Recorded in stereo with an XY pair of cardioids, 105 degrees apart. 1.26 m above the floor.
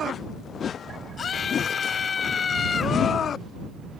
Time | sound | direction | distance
1.2 | a scream | 45° left | ?